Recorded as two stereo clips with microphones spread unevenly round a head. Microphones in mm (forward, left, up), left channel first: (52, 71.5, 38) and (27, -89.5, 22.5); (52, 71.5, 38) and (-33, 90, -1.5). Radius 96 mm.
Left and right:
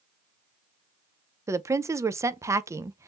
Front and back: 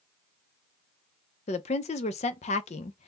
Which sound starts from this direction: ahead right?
A woman speaking, at 1.5 s.